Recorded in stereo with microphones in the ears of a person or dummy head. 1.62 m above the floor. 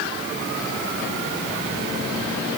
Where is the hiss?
I don't hear a hiss.